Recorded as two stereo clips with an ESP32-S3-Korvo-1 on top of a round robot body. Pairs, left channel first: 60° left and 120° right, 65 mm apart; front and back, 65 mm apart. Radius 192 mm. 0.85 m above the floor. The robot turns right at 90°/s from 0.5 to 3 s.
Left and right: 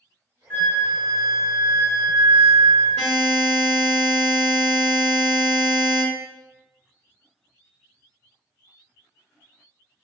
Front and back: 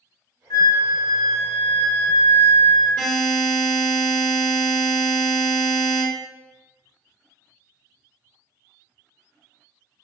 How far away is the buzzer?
About 0.7 m.